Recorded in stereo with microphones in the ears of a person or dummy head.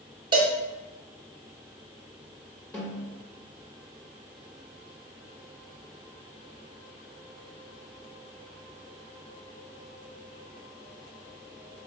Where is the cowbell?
20° right (ahead or behind), 0.5 m.